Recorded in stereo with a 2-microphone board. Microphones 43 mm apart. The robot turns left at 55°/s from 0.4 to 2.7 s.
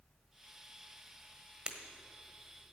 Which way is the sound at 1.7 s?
20° right (ahead or behind).